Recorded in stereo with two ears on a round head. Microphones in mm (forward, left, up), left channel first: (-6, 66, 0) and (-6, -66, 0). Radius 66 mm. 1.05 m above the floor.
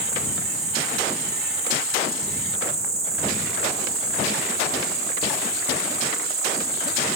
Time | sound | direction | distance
0.0 | an insect | 70° right (ahead or behind) | 2 m